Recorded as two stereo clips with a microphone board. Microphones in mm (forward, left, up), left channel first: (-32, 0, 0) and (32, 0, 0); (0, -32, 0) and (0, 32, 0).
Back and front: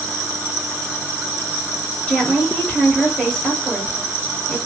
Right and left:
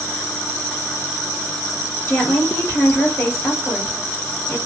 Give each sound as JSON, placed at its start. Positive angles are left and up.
{"t": 2.1, "sound": "a woman speaking", "azimuth_deg": -105, "distance_m": 1.8}